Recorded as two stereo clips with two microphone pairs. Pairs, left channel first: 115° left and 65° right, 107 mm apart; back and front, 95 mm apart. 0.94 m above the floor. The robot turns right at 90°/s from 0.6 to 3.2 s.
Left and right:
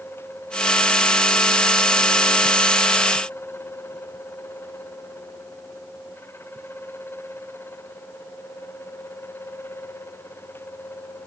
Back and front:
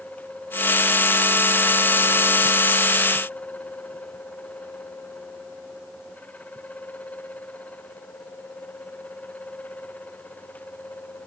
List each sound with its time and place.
Only background noise.